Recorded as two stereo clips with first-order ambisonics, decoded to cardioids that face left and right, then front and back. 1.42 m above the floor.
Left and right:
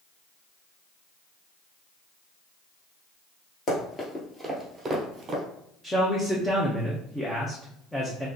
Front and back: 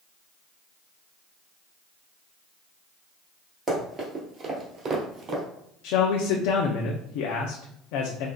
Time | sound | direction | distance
3.7 | running footsteps | 120° left | 1.6 m
5.8 | a man speaking | 5° left | 0.6 m